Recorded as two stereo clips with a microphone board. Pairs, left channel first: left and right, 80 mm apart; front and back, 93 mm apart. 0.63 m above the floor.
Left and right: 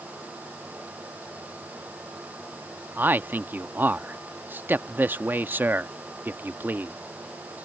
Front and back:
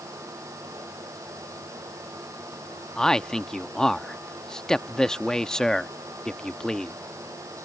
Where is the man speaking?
75° right.